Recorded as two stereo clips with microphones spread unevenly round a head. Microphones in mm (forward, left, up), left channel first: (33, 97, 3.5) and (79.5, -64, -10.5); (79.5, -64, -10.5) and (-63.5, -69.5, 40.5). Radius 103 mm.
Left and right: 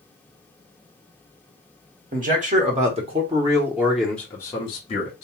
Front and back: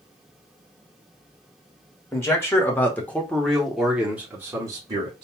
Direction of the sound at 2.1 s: 50° right.